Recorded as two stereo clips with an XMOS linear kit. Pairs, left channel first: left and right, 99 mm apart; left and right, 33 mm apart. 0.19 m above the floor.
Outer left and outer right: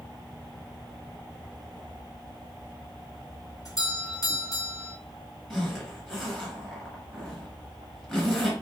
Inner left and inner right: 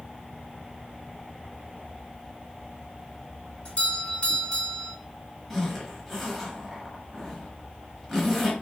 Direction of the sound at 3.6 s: 40° left (ahead or behind).